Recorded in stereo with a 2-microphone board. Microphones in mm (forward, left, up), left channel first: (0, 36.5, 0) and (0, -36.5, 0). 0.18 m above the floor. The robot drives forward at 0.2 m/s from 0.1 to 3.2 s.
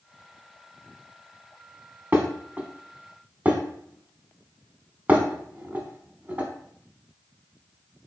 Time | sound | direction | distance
2.1 | dishes clattering | 25° right (ahead or behind) | 0.7 m